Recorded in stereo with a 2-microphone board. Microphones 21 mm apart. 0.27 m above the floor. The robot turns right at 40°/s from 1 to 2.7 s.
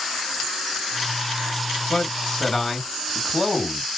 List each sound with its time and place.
1.9 s a man speaking: 135° left, 3 m; by 3.8 s 170° left, 3 m